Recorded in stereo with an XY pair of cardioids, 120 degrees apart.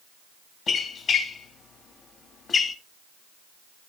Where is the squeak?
45° left, 1.7 m.